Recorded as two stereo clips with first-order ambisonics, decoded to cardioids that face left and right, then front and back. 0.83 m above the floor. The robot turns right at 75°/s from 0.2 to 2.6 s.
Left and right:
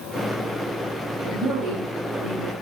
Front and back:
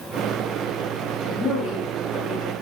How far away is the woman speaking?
About 1.1 m.